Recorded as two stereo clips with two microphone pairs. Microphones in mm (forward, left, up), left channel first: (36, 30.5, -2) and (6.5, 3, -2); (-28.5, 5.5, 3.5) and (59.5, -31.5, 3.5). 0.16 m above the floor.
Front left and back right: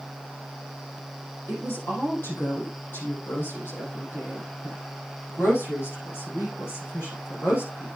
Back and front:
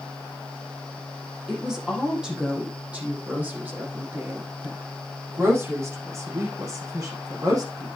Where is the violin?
No violin in this recording.